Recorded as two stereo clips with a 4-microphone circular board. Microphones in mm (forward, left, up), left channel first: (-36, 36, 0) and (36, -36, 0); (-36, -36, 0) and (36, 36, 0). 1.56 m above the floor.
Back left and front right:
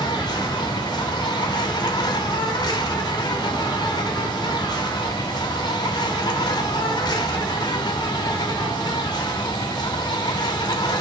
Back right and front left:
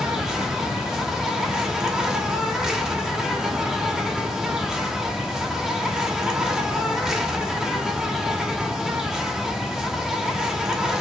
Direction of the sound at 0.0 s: 125° left.